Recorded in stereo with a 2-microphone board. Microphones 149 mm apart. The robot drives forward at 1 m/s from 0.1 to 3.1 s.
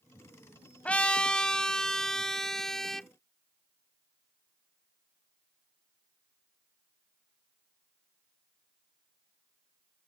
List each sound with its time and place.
0.8 s a trumpet: 10° left (ahead or behind); by 3.1 s centre (ahead or behind)